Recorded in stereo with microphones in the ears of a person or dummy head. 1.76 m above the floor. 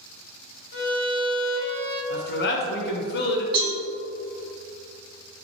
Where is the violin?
50° left (ahead or behind), 0.9 m.